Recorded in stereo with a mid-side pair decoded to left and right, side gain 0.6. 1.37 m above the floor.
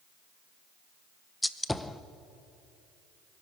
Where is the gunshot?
10° left, 0.8 m.